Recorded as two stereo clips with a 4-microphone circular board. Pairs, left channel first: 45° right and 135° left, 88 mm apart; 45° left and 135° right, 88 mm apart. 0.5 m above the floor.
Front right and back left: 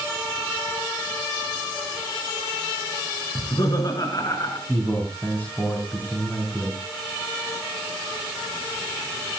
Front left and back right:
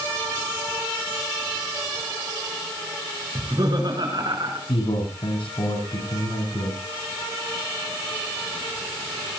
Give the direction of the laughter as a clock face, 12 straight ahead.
3 o'clock.